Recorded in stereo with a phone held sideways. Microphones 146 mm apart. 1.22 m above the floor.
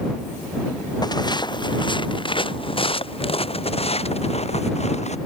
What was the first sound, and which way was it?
Footsteps, 30° left (ahead or behind).